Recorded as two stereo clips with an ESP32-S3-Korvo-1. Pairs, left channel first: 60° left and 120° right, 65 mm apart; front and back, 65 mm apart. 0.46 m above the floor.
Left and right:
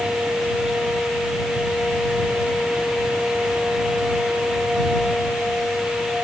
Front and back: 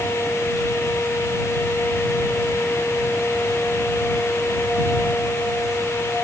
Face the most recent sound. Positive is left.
No sound to turn to.